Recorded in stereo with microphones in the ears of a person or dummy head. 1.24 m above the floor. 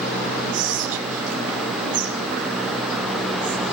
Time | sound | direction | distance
0.5 | whispering | 40° right (ahead or behind) | 0.6 m